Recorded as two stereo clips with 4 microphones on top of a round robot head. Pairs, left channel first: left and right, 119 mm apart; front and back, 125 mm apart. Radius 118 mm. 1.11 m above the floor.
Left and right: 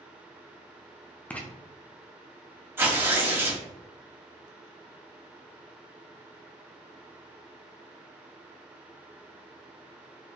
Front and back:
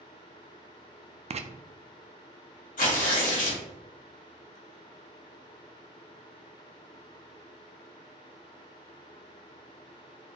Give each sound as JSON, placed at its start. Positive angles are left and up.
{"t": 1.3, "sound": "writing", "azimuth_deg": 165, "distance_m": 0.5}
{"t": 2.8, "sound": "tearing paper", "azimuth_deg": -20, "distance_m": 2.0}